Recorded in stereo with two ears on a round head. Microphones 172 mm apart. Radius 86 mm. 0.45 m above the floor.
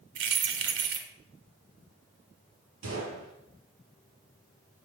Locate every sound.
0.1 s keys jangling: 70° right (ahead or behind), 1.6 m
2.8 s a gunshot: 75° right (ahead or behind), 5 m